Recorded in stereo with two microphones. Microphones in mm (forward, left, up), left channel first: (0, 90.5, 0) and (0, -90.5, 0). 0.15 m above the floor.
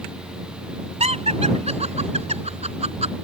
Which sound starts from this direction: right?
Laughter, at 1.0 s.